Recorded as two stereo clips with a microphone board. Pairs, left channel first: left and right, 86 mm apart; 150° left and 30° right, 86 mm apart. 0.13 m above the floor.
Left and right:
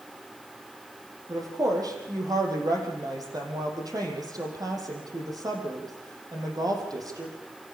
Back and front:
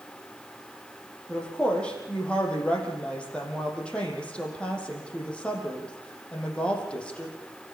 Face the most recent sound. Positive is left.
turn(degrees=-130)